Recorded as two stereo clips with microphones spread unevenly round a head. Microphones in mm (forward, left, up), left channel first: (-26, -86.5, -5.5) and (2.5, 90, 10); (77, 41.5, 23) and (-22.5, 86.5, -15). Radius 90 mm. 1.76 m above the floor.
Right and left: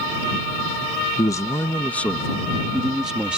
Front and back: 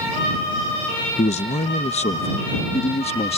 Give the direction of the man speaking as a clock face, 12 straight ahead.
1 o'clock.